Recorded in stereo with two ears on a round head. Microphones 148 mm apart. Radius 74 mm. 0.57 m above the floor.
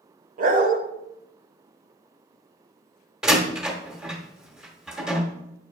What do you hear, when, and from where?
0.4 s a dog barking: 50° right (ahead or behind), 0.9 m
3.2 s a door slam: 5° right (ahead or behind), 1.2 m